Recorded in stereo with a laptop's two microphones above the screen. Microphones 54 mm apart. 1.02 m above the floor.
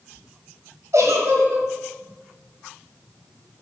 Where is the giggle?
75° right (ahead or behind), 1.8 m.